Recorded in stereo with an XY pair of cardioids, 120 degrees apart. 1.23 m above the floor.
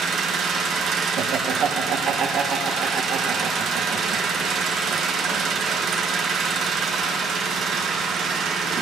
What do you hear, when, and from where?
0.0 s an engine running: 55° right, 0.8 m
1.2 s laughter: 60° right, 1.1 m